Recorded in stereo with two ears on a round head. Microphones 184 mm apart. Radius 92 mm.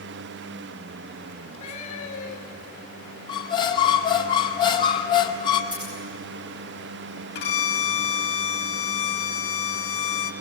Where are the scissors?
25° right (ahead or behind), 7.5 m.